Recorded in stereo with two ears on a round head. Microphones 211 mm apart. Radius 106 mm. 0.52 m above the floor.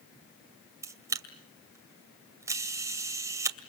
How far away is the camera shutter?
About 2 m.